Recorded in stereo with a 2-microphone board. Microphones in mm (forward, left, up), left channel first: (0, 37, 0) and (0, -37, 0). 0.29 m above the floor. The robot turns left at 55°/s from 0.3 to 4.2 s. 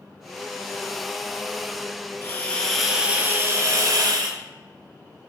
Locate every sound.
2.2 s a hiss: 30° left, 0.6 m; by 4.4 s 80° right, 0.6 m